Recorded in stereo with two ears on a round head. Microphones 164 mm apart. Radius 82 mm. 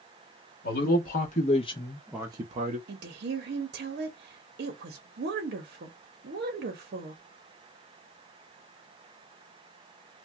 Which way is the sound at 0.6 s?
55° left (ahead or behind).